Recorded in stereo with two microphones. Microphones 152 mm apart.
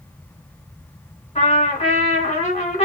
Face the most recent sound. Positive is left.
turn(degrees=45)  # may be behind; listen again after turning